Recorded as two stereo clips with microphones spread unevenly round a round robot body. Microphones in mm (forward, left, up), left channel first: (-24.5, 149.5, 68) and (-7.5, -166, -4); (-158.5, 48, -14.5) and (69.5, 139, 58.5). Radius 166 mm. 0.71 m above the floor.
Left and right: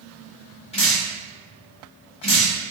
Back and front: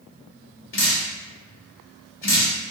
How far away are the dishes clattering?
I don't hear dishes clattering.